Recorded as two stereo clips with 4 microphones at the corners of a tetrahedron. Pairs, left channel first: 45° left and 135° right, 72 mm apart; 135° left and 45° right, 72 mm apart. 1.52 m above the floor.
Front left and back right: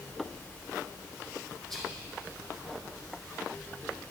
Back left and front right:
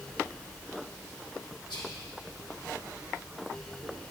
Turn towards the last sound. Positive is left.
turn(degrees=125)